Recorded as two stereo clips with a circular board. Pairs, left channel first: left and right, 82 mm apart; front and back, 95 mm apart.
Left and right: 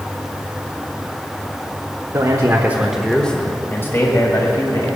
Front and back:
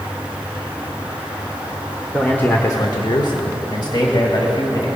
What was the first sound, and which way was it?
A man speaking, 80° right.